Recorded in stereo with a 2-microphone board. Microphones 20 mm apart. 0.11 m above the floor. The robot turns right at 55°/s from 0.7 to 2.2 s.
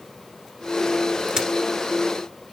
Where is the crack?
35° right (ahead or behind), 1.4 m; by 1.5 s 40° right (ahead or behind), 1.4 m.